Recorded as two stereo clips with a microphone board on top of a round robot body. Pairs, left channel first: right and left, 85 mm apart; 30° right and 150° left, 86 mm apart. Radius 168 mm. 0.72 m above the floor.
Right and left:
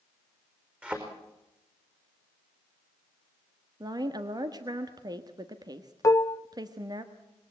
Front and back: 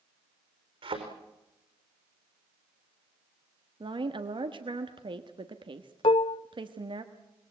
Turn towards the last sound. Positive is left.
turn(degrees=-35)